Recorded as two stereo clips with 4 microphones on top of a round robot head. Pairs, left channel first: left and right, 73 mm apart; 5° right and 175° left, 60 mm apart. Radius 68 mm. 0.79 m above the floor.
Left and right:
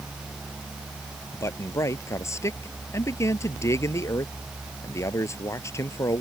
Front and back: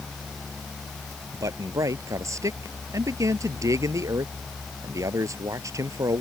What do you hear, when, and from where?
1.3 s a man speaking: 140° left